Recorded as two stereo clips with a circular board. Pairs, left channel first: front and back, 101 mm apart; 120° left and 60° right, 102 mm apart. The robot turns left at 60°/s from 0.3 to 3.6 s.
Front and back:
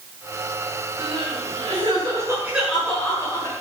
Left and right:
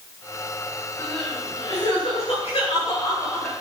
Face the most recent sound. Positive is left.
turn(degrees=40)